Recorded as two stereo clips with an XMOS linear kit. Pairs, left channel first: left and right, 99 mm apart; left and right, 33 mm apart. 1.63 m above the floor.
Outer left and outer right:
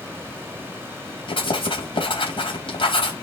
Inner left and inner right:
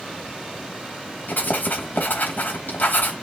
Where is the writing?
60° left (ahead or behind), 4.5 m.